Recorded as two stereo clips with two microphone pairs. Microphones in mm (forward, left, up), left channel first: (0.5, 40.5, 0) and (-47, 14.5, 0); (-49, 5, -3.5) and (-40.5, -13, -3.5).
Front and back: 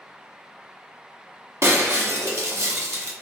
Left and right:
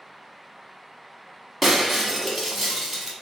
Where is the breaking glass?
155° right, 1.0 m.